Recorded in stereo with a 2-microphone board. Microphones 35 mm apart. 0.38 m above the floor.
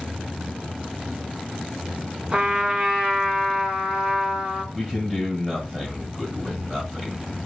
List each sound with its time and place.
2.3 s a trumpet: 25° right (ahead or behind), 1.4 m
4.7 s a man speaking: centre (ahead or behind), 2.5 m